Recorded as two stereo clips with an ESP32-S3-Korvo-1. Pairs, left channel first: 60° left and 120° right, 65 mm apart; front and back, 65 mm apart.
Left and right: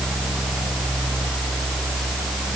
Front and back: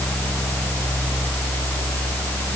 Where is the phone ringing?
No phone ringing in this recording.